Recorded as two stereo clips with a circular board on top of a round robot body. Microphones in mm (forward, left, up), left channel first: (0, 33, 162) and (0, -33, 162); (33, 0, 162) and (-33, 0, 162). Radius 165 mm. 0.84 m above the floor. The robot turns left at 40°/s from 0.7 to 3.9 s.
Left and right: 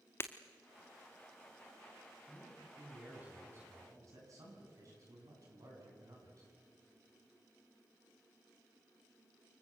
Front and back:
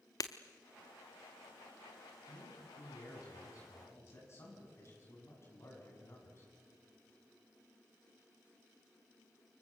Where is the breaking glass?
35° left, 0.5 m.